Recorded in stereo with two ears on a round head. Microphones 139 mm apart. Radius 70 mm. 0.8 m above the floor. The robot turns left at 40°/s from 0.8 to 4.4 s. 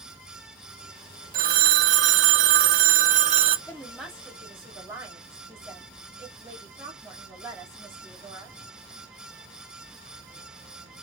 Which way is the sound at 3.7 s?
15° left (ahead or behind).